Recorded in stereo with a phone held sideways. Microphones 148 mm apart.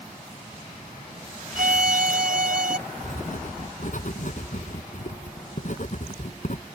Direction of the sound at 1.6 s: 75° right (ahead or behind).